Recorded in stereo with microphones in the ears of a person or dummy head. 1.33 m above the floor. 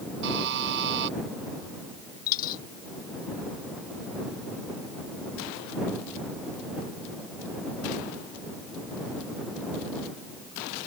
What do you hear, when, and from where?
0.2 s a buzzer: 60° right (ahead or behind)
2.3 s a dropped coin: 45° left (ahead or behind)